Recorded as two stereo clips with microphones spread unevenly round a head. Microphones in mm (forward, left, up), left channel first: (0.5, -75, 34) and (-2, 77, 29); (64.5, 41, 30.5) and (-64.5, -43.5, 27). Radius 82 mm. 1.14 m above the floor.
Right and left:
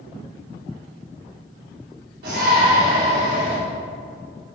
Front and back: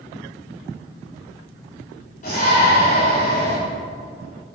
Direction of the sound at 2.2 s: 75° left.